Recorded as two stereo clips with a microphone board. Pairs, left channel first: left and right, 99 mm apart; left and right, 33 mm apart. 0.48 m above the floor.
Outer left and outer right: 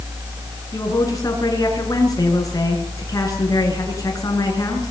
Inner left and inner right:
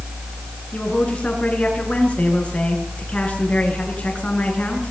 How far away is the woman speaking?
About 7.5 m.